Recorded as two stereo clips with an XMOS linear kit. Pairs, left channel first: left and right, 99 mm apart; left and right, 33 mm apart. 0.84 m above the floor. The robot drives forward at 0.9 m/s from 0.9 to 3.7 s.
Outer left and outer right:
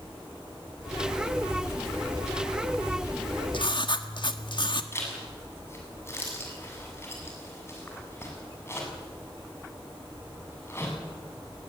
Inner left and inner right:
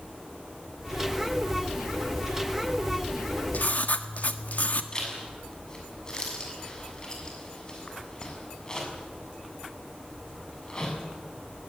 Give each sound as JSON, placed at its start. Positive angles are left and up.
{"t": 3.5, "sound": "writing", "side_deg": 60, "distance_m": 1.4}
{"t": 4.9, "sound": "a zipper", "side_deg": 25, "distance_m": 6.5}